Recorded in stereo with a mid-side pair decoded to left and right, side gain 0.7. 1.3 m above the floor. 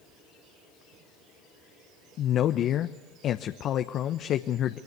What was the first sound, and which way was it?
A man speaking, 45° left.